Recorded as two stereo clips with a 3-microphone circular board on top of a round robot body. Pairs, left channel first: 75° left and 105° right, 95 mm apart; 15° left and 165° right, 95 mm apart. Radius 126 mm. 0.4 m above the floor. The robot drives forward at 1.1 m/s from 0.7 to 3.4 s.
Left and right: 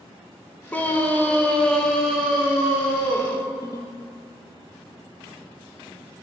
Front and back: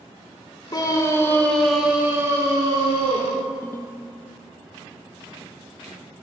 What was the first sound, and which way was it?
A scream, 10° left.